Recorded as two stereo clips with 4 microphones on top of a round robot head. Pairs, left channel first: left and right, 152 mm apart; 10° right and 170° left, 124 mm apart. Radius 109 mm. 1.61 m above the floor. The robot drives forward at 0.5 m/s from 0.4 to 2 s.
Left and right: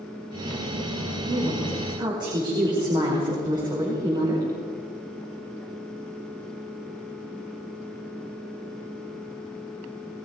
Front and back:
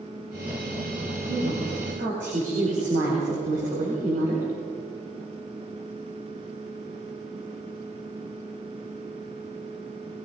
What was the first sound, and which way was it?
A woman speaking, 150° right.